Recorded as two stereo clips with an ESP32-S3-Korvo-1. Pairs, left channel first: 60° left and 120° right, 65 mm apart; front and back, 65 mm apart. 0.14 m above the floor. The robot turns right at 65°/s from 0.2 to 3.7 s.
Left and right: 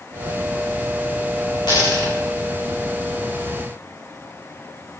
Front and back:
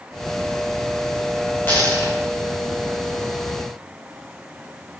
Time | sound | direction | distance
1.7 | a dropped coin | 60° left | 5.5 m